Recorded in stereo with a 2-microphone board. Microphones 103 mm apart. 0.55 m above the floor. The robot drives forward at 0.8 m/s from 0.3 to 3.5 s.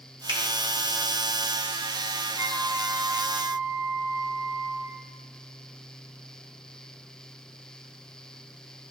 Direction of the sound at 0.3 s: 50° right (ahead or behind).